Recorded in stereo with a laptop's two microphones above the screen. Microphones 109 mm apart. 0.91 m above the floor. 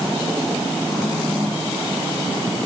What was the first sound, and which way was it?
Only background noise.